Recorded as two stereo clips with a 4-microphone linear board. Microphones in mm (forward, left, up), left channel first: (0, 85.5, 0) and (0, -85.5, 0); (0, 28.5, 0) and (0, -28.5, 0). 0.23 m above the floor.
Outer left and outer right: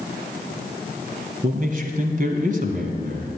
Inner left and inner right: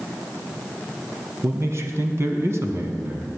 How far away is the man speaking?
About 1.6 m.